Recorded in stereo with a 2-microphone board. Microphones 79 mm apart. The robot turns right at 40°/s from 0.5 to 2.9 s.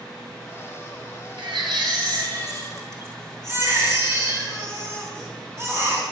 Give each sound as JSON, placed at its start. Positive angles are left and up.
{"t": 1.4, "sound": "a baby crying", "azimuth_deg": -95, "distance_m": 3.5}